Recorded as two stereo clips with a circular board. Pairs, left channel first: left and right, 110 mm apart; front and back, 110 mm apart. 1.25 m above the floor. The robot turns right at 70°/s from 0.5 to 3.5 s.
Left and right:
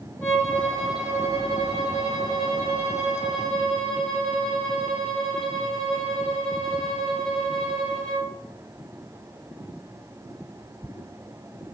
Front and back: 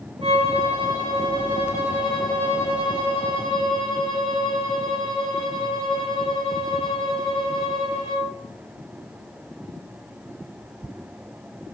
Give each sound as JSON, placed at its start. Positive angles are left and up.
{"t": 0.2, "sound": "a violin", "azimuth_deg": 155, "distance_m": 1.1}